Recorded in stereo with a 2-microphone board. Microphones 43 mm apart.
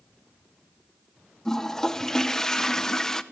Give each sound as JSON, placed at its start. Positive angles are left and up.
{"t": 1.4, "sound": "a toilet flushing", "side_deg": 15, "distance_m": 0.8}